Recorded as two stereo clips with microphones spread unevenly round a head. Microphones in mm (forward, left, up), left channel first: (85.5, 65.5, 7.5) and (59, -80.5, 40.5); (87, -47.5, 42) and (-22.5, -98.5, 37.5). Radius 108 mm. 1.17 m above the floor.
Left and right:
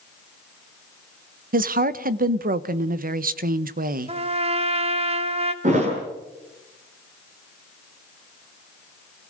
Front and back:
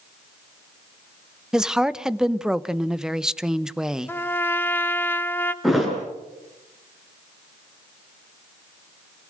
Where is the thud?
65° right, 8 m.